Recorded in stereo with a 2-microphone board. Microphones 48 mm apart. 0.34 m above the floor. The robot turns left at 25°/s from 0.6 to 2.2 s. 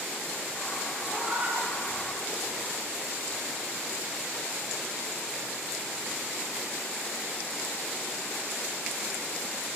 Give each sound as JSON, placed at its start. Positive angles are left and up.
{"t": 1.1, "sound": "a cat meowing", "side_deg": -35, "distance_m": 7.0}